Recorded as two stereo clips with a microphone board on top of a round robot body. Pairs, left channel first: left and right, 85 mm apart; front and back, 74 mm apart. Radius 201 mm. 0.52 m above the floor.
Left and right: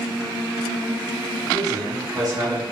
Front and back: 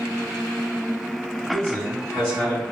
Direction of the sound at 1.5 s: 135° right.